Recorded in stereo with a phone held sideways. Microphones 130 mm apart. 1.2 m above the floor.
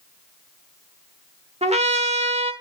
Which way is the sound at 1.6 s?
55° right (ahead or behind).